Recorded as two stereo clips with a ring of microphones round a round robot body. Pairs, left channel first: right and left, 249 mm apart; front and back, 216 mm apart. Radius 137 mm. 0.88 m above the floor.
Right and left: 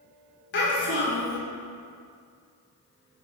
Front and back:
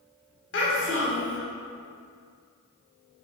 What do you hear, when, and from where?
0.5 s a child speaking: 45° right, 1.2 m